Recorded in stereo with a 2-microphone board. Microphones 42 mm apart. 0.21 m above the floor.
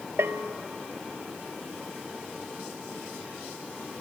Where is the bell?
70° right (ahead or behind), 0.7 m.